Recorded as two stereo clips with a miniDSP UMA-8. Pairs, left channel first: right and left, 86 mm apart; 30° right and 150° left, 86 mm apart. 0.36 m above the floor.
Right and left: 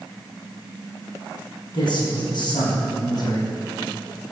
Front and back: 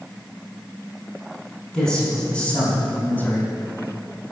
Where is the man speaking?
110° right, 4 m; by 3.5 s 80° right, 2 m.